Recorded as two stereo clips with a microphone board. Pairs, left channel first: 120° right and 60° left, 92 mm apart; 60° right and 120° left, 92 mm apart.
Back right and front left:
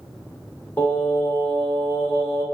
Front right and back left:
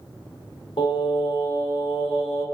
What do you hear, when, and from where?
0.8 s singing: 55° right, 1.3 m